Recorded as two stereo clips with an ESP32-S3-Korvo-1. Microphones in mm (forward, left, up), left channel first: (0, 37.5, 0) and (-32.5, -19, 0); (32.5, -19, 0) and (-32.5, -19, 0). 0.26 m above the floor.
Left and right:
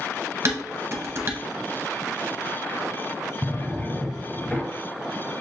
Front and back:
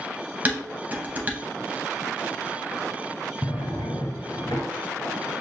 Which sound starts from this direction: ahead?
A drawer, at 3.4 s.